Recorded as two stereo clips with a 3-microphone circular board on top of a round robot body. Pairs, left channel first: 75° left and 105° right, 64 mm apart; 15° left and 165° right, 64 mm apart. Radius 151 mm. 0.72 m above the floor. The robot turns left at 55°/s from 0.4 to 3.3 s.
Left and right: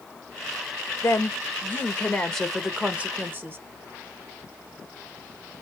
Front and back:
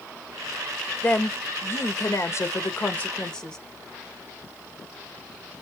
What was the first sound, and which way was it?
A woman speaking, 65° left.